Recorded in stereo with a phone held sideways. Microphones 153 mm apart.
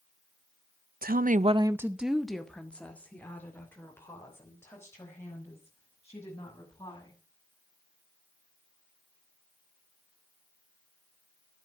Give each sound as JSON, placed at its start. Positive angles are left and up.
{"t": 1.0, "sound": "a woman speaking", "side_deg": -70, "distance_m": 0.6}